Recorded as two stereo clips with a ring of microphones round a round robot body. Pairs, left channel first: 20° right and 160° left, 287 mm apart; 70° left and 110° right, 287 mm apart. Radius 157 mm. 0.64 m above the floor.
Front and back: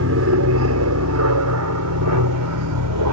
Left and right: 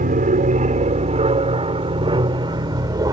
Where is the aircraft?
170° right; by 3.1 s 170° left.